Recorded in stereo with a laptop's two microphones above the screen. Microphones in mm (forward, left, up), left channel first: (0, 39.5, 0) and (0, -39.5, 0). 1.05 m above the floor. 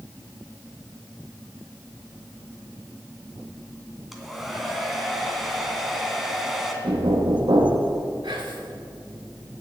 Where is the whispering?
90° right, 2.5 m.